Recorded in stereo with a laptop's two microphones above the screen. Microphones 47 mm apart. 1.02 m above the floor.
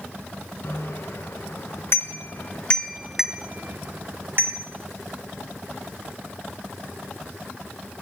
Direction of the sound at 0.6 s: 75° left (ahead or behind).